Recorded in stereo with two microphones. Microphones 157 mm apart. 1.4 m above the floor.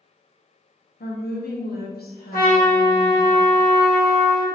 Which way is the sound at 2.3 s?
70° left (ahead or behind).